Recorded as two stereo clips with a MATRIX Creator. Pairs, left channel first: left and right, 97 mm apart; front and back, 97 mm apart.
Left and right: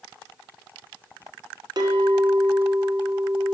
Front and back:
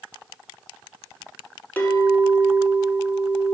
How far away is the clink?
About 1.2 m.